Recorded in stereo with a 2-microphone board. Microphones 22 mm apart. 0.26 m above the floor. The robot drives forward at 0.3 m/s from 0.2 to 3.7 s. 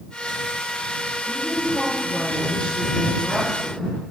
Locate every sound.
1.3 s a woman speaking: 75° left (ahead or behind), 4.5 m